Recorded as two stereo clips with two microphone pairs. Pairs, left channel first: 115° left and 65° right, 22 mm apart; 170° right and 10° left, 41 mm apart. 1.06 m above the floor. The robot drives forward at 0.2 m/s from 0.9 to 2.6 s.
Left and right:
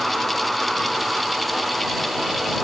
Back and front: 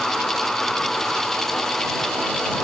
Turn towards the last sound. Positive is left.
No sound to turn to.